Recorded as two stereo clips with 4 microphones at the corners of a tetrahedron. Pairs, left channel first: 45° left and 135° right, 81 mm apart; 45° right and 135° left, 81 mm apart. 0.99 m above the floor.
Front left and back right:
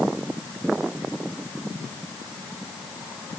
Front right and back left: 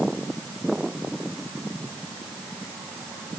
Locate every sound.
Only background noise.